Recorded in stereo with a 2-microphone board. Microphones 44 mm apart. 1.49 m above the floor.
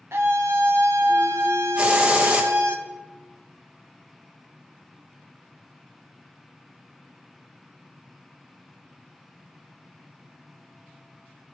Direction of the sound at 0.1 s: 80° right.